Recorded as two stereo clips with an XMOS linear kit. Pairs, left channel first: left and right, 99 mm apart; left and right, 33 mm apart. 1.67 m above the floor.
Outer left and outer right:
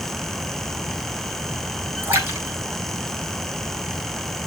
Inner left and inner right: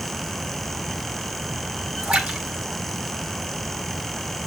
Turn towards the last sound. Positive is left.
turn(degrees=-20)  # may be behind; listen again after turning